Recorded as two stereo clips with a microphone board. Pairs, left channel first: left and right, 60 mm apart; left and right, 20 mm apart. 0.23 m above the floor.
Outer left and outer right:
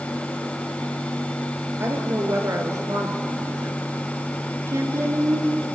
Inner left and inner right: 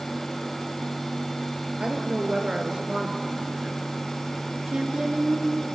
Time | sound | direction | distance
1.8 | a woman speaking | 50° right (ahead or behind) | 4 m
4.7 | a woman speaking | 55° right (ahead or behind) | 3.5 m